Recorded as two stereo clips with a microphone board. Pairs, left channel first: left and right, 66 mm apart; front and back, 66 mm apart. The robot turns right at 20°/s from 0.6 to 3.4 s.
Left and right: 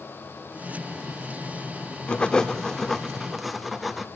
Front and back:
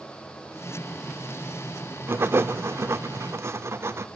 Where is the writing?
155° left, 1.1 m; by 4.1 s straight behind, 1.1 m.